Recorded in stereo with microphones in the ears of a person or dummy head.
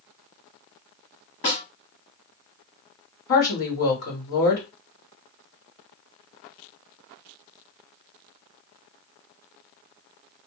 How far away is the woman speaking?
About 1.5 m.